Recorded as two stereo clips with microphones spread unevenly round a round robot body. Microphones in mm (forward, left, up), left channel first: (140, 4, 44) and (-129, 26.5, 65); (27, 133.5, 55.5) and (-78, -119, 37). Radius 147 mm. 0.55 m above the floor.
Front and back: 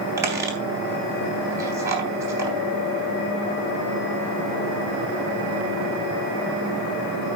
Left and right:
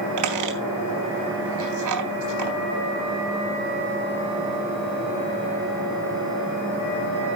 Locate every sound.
0.2 s a squeak: 105° right, 3.5 m